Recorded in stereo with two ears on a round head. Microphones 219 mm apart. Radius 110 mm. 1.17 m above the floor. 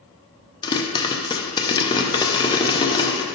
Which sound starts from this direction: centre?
A pop, at 0.6 s.